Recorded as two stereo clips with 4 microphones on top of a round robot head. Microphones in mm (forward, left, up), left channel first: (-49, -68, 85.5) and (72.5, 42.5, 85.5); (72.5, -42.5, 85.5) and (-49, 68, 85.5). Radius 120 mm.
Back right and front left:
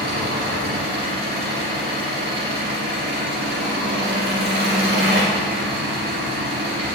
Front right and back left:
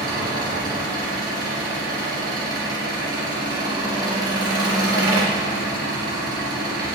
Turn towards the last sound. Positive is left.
turn(degrees=70)